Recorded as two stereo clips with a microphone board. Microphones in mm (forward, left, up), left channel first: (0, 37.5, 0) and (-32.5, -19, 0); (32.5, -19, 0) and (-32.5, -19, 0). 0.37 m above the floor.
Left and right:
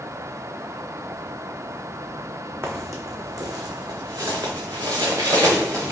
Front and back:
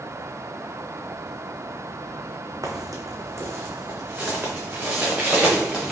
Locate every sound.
2.6 s footsteps: 165° right, 0.9 m; by 5.9 s 95° right, 2 m